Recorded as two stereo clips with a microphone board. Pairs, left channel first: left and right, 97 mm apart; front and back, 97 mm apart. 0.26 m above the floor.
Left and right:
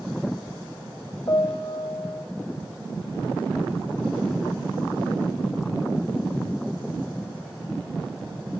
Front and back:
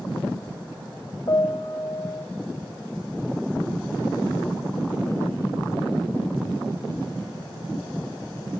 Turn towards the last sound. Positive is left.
turn(degrees=45)